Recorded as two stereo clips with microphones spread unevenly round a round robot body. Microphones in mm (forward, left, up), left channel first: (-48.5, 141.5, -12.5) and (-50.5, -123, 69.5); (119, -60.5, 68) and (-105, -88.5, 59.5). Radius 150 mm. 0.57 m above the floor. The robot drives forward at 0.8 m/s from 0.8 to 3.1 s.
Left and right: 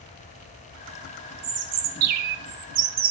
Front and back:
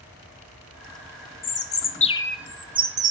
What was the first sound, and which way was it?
A bird, 25° right.